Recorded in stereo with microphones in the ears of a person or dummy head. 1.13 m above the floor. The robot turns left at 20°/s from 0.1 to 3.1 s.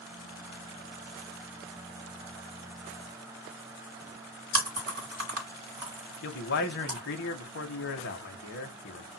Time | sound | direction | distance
4.5 | chewing | 60° right (ahead or behind) | 1.6 m
6.2 | a man speaking | 55° left (ahead or behind) | 0.5 m